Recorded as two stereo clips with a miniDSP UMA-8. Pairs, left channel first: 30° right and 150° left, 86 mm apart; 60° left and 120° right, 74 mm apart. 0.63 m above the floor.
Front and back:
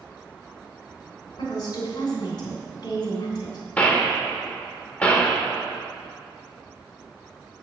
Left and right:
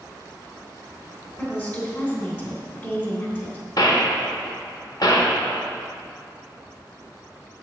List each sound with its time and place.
1.4 s a woman speaking: straight ahead, 2.5 m
3.8 s a gunshot: 45° left, 1.1 m